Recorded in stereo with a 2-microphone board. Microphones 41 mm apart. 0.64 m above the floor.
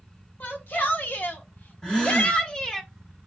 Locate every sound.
0.4 s a shout: 50° left (ahead or behind), 1.7 m; by 2.8 s 15° left (ahead or behind), 0.9 m
1.8 s a gasp: 15° left (ahead or behind), 1.6 m